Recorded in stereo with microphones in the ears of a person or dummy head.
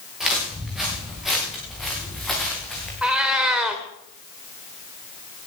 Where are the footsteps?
5° right (ahead or behind), 9.5 m; by 2.9 s 5° left (ahead or behind), 8 m.